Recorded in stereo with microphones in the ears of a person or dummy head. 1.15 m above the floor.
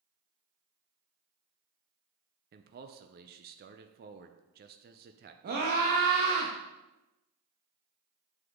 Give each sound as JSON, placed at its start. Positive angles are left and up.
{"t": 2.5, "sound": "a man speaking", "side_deg": -40, "distance_m": 0.6}
{"t": 5.4, "sound": "a scream", "side_deg": -45, "distance_m": 1.2}